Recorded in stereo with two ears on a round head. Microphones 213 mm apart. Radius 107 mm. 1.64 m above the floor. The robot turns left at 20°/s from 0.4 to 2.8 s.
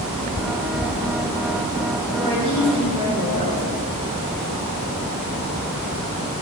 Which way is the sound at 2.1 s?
35° left (ahead or behind).